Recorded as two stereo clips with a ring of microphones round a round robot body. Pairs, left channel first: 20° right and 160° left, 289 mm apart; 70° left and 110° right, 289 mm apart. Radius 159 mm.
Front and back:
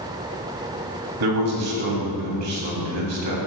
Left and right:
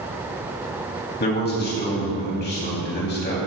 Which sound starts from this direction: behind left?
A man speaking, at 1.2 s.